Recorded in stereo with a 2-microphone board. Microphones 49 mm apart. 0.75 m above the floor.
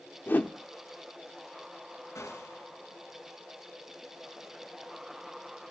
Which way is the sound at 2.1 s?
75° left (ahead or behind).